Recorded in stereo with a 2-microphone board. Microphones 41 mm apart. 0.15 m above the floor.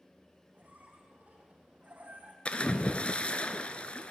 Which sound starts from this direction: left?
A splash, at 2.5 s.